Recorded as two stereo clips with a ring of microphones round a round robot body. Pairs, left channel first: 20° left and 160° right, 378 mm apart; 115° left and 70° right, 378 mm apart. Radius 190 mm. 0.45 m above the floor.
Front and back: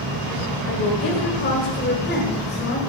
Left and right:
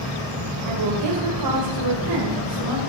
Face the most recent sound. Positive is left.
turn(degrees=-35)